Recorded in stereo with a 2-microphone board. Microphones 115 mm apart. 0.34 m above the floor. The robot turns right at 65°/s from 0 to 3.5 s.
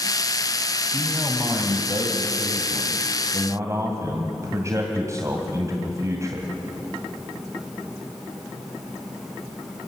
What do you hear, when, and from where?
0.9 s a man speaking: 160° left, 2 m; by 6.5 s 35° right, 2 m